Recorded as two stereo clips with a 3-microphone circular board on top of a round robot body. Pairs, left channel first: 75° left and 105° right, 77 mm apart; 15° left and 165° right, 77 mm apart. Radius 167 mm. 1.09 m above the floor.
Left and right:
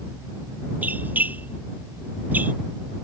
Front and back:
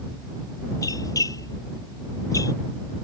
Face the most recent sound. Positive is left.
turn(degrees=-35)